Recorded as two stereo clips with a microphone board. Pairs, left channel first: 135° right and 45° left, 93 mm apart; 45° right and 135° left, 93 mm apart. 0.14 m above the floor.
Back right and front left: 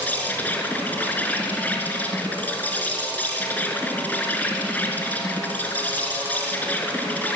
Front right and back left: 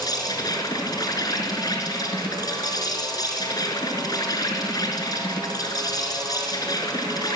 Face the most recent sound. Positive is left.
turn(degrees=-70)